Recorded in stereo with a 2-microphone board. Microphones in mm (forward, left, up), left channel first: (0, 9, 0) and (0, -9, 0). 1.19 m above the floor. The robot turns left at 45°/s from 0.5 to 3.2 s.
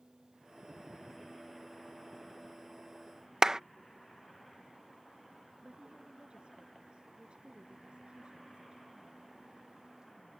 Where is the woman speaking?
80° right.